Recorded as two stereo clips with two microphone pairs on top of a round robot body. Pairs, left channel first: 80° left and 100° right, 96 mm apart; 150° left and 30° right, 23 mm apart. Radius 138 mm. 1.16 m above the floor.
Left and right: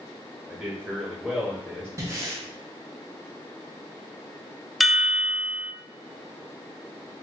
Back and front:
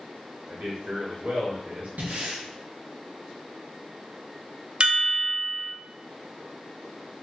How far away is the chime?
About 0.5 m.